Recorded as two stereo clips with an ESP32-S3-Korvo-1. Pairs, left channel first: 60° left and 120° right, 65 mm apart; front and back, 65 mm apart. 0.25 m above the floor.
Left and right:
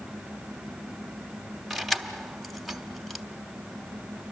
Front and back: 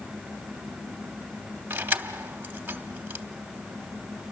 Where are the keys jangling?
150° left, 1.0 m.